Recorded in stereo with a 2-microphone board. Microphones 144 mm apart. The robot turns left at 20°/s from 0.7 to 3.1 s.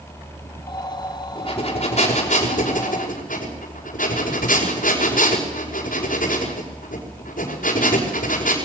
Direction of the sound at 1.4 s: 140° left.